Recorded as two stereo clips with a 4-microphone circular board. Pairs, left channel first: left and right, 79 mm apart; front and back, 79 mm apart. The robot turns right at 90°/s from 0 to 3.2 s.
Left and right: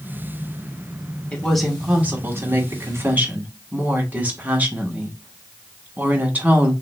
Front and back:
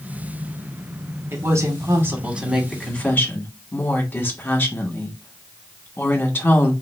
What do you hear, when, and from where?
1.3 s a woman speaking: 150° left, 1.0 m; by 6.7 s 40° right, 1.0 m